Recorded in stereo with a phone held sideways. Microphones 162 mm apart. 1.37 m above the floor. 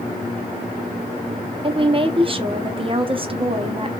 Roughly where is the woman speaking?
Right.